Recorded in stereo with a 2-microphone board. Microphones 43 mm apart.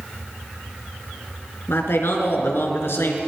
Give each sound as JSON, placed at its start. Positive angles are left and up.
{"t": 1.7, "sound": "a man speaking", "side_deg": 70, "distance_m": 3.5}